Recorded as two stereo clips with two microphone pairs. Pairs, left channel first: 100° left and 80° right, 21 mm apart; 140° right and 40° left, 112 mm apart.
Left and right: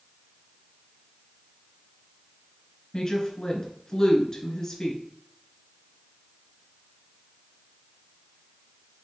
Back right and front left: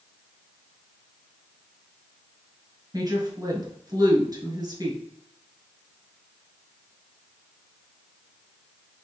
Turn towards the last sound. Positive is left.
turn(degrees=60)